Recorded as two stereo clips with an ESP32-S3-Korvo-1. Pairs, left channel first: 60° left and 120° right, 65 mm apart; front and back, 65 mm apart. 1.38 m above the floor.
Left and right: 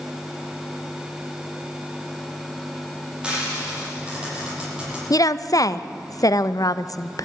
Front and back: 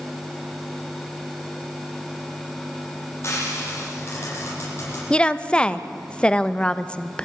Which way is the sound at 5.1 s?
70° left.